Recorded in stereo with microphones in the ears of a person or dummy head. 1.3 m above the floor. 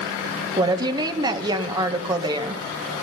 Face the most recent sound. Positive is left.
turn(degrees=-25)  # may be behind; listen again after turning